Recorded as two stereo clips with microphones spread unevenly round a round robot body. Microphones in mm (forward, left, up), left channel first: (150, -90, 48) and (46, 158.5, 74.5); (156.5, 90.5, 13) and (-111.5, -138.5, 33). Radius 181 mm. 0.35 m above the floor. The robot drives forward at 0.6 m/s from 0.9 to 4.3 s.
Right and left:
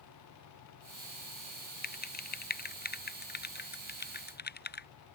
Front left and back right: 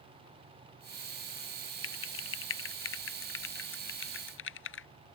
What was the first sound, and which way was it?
Typing on a keyboard, 15° right.